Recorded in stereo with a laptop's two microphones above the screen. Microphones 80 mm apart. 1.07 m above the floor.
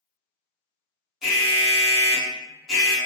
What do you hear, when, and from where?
1.2 s an alarm: 10° right (ahead or behind), 0.9 m